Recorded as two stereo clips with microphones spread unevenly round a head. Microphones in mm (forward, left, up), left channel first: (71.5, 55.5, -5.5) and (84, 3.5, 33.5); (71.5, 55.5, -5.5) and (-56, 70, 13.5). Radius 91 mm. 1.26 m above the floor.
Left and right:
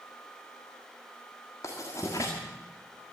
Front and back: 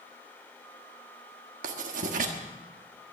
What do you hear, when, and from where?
1.6 s writing: 175° right, 1.4 m